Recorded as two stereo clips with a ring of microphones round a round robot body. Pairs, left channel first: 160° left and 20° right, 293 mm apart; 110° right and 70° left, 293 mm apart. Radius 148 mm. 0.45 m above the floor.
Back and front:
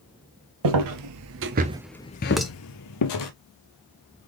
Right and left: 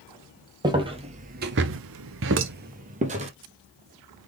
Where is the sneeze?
I don't hear a sneeze.